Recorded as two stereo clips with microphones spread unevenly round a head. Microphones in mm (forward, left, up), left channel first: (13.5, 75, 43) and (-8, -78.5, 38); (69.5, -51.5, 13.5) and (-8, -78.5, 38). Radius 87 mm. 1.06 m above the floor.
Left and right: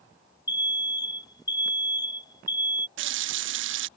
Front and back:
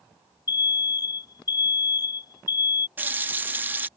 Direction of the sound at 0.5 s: 20° left.